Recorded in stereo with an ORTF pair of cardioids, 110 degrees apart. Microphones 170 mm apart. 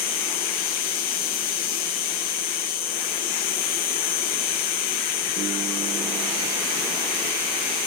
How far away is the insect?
About 1.4 m.